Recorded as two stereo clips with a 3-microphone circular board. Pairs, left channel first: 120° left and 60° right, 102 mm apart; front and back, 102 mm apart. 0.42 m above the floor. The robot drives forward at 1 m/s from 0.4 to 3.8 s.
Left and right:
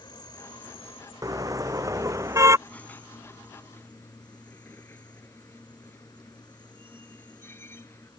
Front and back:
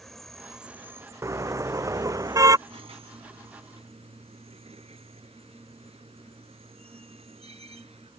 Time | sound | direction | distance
0.0 | an insect | 90° left | ?
1.2 | a car horn | 115° right | ?
2.7 | a squeak | 165° right | ?